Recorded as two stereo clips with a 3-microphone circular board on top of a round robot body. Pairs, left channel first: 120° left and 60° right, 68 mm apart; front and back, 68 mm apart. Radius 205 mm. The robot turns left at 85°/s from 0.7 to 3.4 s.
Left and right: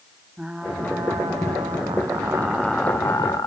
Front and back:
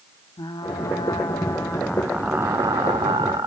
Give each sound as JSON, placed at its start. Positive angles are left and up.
{"t": 0.4, "sound": "frying", "azimuth_deg": 20, "distance_m": 1.2}